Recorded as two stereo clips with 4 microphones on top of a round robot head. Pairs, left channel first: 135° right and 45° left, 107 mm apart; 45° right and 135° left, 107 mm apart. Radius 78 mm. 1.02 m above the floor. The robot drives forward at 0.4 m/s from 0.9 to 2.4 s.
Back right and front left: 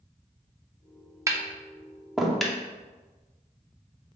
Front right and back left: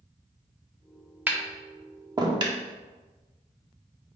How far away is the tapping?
About 0.7 m.